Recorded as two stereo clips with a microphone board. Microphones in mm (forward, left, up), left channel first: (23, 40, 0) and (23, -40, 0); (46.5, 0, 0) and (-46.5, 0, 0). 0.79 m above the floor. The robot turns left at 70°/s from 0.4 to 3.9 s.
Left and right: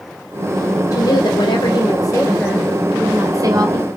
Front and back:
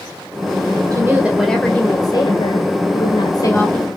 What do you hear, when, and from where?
0.9 s a woman speaking: 130° left, 2.5 m; by 3.9 s 80° right, 2.5 m